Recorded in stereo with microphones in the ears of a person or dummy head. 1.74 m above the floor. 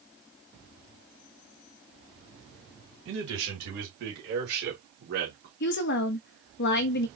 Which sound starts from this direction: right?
A man speaking, at 3.0 s.